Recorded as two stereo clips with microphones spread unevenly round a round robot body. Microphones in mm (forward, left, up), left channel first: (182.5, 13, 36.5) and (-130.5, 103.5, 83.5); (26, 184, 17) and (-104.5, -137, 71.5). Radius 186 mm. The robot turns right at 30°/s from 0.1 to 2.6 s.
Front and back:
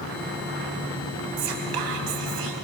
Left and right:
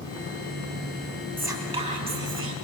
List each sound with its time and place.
1.4 s whispering: 160° left, 4 m; by 2.5 s 165° right, 4 m